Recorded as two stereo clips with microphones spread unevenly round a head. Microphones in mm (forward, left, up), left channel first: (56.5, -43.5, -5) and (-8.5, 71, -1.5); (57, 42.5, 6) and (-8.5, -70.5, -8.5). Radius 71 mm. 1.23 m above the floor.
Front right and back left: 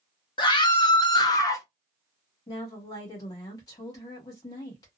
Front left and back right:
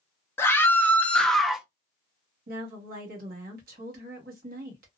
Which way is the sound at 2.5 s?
125° right.